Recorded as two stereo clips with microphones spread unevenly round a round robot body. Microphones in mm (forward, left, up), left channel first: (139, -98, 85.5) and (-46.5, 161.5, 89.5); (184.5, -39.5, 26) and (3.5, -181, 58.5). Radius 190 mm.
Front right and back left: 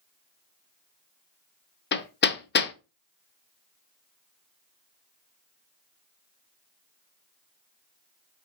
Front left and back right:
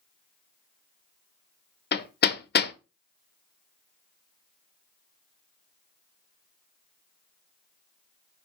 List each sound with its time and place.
1.9 s hammering: straight ahead, 0.6 m